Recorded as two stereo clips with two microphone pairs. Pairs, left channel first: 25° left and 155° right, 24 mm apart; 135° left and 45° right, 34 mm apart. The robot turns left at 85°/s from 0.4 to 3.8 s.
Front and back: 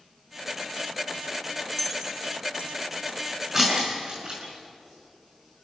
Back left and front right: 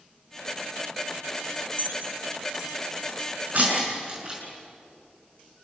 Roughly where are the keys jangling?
Ahead right.